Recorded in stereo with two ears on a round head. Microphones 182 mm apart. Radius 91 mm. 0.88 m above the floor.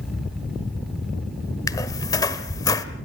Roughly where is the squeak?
Centre.